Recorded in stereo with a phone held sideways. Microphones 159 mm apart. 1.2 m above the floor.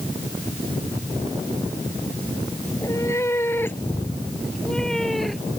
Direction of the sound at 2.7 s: 20° left (ahead or behind).